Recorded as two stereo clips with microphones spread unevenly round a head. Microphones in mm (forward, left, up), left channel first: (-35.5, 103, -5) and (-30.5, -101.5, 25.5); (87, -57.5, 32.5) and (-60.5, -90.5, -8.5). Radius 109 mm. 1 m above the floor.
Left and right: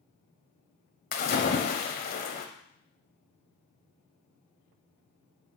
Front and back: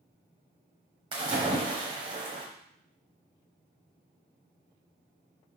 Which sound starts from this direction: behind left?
A splash, at 1.1 s.